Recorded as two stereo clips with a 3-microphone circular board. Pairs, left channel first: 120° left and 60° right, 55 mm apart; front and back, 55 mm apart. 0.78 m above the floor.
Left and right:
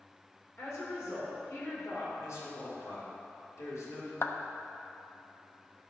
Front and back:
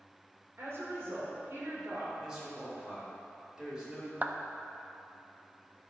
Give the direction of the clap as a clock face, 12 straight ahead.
8 o'clock.